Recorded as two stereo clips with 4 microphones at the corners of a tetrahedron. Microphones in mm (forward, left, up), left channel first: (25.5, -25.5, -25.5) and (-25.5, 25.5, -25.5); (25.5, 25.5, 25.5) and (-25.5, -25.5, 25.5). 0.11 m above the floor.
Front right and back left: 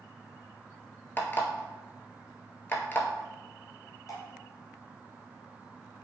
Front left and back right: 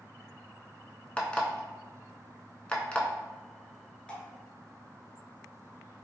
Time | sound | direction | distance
1.2 | an alarm clock | 20° right | 0.5 m
4.1 | dripping | 30° right | 0.9 m